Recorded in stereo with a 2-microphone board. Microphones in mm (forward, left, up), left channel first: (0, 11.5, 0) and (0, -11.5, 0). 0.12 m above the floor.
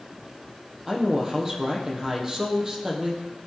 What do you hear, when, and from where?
0.9 s a woman speaking: 15° right (ahead or behind), 4.5 m